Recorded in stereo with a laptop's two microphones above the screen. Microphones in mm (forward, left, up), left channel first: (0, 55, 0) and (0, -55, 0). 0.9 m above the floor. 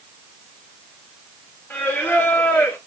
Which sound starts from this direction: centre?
Singing, at 1.7 s.